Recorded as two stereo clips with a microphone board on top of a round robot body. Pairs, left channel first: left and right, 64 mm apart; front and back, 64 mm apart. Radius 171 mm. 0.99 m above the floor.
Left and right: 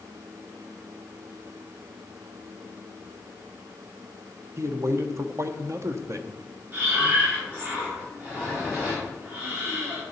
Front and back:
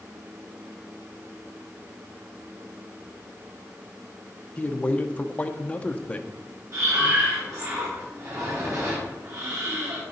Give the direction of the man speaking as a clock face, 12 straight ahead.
2 o'clock.